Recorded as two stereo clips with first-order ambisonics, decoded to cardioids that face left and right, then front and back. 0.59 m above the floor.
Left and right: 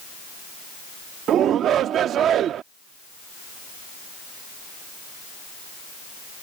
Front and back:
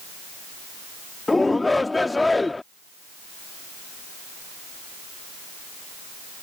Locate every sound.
1.3 s a shout: 75° right